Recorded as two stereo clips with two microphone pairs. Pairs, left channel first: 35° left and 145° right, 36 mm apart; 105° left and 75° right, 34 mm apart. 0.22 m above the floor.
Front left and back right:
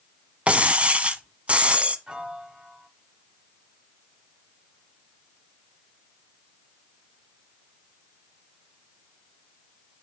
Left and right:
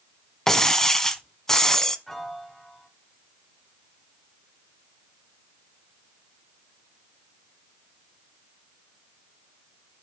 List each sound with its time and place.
0.5 s breaking glass: 175° left, 0.9 m
2.1 s a piano: straight behind, 1.1 m